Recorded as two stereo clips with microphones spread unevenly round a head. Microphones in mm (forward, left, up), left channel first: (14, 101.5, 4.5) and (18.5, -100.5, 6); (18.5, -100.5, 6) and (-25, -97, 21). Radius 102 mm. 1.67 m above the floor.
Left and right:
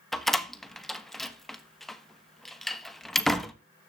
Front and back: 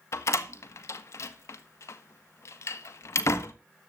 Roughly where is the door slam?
Ahead.